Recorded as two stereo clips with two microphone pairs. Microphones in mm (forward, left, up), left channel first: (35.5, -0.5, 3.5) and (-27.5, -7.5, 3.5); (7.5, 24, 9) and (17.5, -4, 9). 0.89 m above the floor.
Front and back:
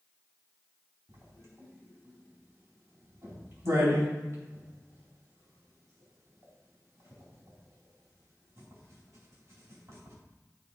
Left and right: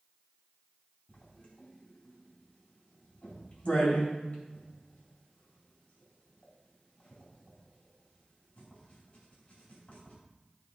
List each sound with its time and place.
1.1 s writing: 155° left, 4 m